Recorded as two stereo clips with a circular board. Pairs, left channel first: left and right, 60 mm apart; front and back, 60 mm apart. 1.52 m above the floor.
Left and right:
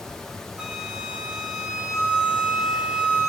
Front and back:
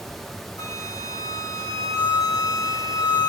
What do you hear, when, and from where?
0.6 s a flute: 15° right, 3 m